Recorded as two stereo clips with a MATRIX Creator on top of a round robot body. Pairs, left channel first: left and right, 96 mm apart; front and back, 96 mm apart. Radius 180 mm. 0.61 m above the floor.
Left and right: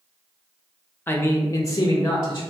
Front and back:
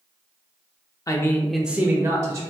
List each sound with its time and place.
1.1 s a man speaking: 35° left, 0.6 m; by 2.4 s 145° left, 0.8 m